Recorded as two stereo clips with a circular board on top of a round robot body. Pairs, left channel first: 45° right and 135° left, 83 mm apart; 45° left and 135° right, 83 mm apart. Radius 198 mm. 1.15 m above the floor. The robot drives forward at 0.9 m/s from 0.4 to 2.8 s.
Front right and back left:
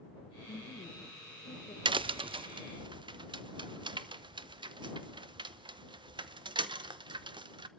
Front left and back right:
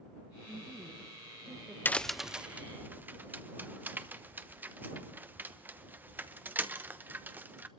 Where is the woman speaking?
35° right, 2.5 m; by 1.8 s 60° right, 1.5 m.